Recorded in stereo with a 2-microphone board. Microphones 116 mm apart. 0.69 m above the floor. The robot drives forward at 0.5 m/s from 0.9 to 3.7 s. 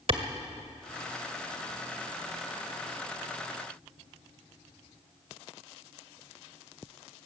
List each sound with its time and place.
0.1 s a clap: 50° right (ahead or behind), 1.8 m